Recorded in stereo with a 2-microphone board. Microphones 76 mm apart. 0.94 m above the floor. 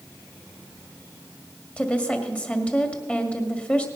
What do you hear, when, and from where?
1.8 s a woman speaking: 15° left (ahead or behind), 1.8 m